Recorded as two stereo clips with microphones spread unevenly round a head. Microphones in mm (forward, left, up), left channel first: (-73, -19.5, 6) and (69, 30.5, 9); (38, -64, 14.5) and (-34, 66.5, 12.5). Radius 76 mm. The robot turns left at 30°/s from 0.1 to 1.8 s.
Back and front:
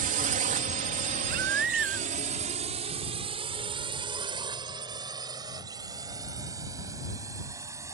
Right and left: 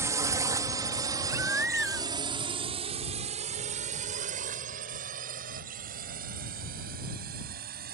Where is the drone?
50° left; by 8.0 s 90° left.